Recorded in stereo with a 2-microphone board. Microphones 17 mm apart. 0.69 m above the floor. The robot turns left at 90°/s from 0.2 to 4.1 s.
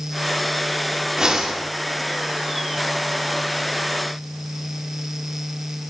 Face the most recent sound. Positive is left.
turn(degrees=60)